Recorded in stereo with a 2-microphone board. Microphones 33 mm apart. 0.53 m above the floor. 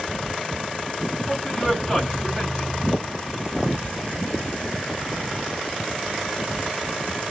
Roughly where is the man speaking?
Centre.